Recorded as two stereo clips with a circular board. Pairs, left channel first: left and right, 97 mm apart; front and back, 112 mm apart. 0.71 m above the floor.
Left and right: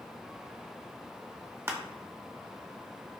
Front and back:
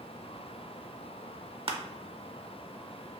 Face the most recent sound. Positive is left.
turn(degrees=-150)